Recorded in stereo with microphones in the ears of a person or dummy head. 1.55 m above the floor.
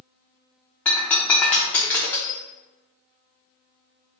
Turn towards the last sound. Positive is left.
turn(degrees=10)  # may be behind; listen again after turning